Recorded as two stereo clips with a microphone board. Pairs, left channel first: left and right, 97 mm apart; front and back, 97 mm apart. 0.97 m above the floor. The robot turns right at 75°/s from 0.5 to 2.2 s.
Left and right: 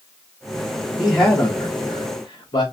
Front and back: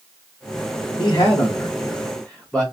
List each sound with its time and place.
1.0 s a man speaking: 10° right, 1.0 m; by 2.6 s 80° left, 1.0 m